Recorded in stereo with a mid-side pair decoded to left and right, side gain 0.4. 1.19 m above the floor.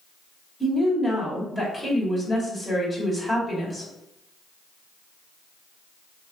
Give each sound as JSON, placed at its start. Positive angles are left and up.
{"t": 0.6, "sound": "a woman speaking", "azimuth_deg": 25, "distance_m": 1.6}